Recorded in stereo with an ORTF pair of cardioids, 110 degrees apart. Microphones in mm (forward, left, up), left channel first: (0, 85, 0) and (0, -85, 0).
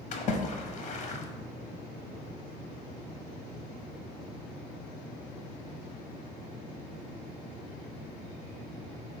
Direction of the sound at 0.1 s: 45° left.